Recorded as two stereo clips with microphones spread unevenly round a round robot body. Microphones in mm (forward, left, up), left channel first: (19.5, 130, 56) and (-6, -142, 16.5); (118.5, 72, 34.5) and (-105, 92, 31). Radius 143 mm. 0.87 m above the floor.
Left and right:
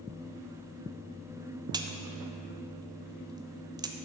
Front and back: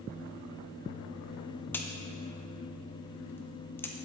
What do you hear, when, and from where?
1.7 s a crack: 75° right, 0.7 m